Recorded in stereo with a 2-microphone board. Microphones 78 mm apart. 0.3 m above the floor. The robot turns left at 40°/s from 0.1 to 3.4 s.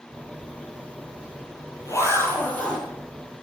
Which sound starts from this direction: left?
A zipper, at 0.4 s.